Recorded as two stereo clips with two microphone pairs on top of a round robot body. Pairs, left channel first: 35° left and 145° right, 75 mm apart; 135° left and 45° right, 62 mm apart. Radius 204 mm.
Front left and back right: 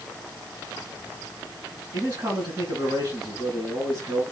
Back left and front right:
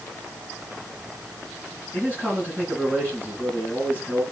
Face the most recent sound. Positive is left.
turn(degrees=-165)